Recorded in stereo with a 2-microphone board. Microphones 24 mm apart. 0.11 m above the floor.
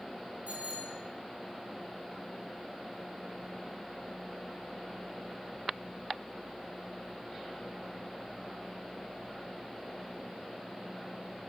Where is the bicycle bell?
80° right, 8.5 m.